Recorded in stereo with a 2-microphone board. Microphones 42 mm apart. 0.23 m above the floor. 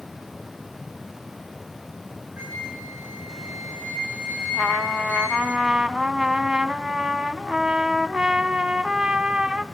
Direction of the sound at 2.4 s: 55° right (ahead or behind).